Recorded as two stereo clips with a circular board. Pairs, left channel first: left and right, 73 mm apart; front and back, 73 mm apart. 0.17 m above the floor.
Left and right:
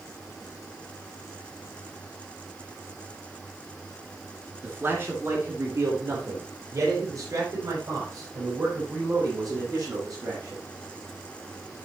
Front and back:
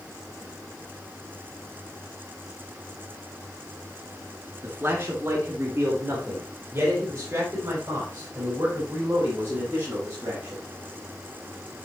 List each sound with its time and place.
4.6 s a man speaking: 140° right, 2.5 m; by 10.6 s 125° right, 8.5 m